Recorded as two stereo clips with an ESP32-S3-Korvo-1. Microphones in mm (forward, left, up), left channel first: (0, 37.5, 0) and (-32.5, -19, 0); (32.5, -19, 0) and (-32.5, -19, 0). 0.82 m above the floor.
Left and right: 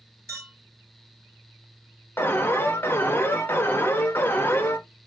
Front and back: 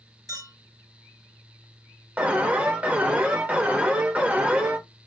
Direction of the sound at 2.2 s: 115° left.